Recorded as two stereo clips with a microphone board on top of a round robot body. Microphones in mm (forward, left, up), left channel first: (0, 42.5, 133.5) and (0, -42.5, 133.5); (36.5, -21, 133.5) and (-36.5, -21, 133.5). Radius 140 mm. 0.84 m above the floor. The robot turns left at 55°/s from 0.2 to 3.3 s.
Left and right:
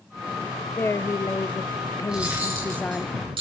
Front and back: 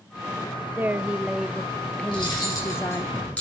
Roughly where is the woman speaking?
Behind left.